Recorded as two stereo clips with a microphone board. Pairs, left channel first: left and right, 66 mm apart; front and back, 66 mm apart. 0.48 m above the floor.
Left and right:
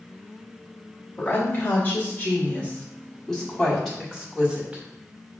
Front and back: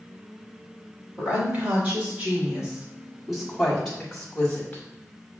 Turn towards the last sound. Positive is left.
turn(degrees=-40)